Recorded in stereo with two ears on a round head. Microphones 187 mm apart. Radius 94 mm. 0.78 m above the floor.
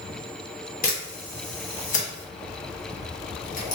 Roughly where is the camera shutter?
Left.